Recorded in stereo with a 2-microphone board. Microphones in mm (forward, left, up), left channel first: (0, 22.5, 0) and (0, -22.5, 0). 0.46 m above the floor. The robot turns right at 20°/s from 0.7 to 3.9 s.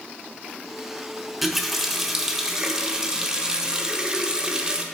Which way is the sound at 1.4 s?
5° right (ahead or behind).